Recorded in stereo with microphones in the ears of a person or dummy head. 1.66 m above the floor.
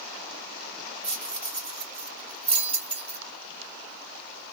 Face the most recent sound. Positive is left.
turn(degrees=5)  # may be behind; listen again after turning